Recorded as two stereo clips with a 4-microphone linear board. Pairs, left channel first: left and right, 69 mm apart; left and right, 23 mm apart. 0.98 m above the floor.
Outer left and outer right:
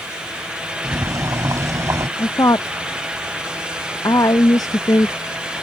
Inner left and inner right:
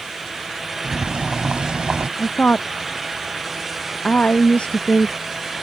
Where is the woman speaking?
60° left (ahead or behind).